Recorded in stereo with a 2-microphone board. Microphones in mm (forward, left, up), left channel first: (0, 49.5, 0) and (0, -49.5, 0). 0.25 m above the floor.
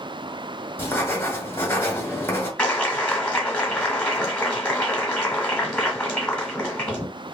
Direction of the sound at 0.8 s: 25° left (ahead or behind).